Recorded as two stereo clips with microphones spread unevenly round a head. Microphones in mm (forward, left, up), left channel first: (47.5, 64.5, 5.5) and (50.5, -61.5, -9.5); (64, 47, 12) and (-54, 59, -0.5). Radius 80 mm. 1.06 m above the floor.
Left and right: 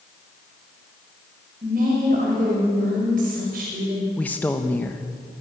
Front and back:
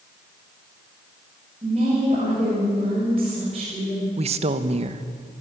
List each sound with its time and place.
1.6 s a woman speaking: 130° right, 6 m
4.2 s a woman speaking: 175° left, 1.2 m